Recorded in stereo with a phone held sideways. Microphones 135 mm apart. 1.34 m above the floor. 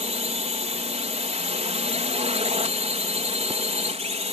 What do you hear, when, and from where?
0.0 s a drone: 55° right (ahead or behind)